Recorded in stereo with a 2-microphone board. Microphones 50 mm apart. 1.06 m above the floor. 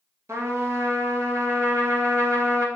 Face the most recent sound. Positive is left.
turn(degrees=-70)  # may be behind; listen again after turning